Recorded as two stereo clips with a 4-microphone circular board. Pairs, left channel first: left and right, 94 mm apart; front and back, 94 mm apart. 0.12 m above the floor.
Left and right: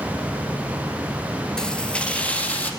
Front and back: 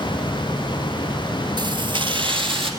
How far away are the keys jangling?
About 1.6 m.